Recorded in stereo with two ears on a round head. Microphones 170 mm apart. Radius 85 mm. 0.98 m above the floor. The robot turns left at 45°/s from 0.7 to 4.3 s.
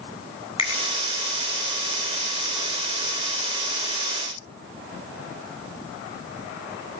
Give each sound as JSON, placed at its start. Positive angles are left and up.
{"t": 0.6, "sound": "a finger snap", "side_deg": 30, "distance_m": 4.5}